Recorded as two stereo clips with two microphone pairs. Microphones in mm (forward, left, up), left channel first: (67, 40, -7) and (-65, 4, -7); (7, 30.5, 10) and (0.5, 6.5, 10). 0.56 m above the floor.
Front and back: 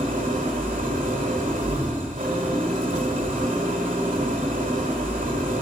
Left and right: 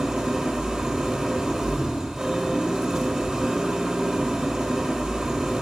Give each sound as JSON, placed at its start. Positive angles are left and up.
{"t": 0.0, "sound": "an engine running", "azimuth_deg": -165, "distance_m": 1.3}